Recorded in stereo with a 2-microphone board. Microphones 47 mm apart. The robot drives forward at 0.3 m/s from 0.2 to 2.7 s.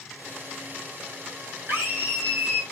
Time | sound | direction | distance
1.7 | a scream | 50° right (ahead or behind) | 3 m